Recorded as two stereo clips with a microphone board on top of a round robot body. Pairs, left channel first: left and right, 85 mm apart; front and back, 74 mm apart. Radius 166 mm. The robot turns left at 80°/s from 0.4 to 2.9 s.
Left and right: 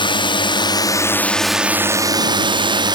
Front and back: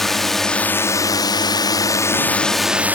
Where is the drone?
85° left; by 3.0 s 115° right.